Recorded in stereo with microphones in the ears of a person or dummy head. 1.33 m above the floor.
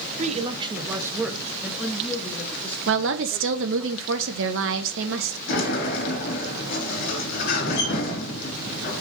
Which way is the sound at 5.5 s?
55° left (ahead or behind).